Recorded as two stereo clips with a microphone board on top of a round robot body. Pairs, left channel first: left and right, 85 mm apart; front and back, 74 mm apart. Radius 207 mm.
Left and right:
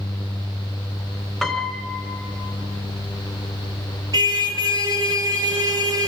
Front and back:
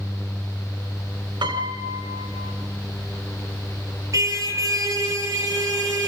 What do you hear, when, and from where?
1.4 s a piano: straight behind, 3.5 m
4.1 s a car horn: 135° right, 8.5 m